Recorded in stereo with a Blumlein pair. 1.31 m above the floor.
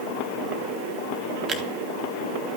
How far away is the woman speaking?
I don't hear a woman speaking.